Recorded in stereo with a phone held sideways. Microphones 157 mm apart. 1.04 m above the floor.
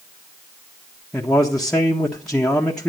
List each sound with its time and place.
1.1 s a man speaking: 5° left (ahead or behind), 1.5 m